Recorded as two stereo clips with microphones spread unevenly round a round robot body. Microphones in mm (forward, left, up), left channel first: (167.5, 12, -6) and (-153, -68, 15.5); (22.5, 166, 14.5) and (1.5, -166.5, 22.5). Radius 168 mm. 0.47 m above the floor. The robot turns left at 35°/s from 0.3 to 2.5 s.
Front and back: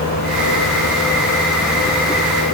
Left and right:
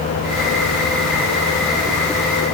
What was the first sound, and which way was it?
Only background noise.